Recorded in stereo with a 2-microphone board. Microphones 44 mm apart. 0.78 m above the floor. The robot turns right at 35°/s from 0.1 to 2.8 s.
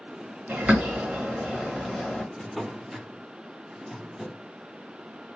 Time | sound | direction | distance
0.5 | a bird | 40° right (ahead or behind) | 0.9 m
2.4 | a drawer | 10° left (ahead or behind) | 0.5 m